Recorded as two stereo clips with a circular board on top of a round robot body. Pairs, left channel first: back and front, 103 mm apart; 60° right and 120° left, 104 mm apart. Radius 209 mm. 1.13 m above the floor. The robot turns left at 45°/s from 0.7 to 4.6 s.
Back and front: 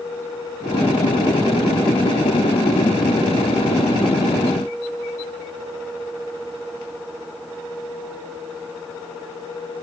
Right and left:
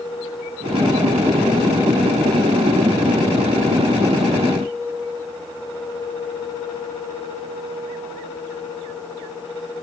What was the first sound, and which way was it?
Only background noise.